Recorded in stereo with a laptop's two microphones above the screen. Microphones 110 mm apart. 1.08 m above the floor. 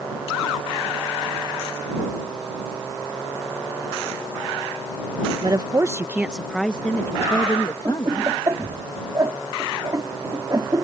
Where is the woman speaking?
45° right (ahead or behind); by 8.3 s 45° left (ahead or behind).